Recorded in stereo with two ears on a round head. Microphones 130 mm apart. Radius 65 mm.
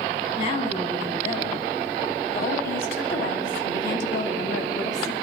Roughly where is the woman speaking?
Left.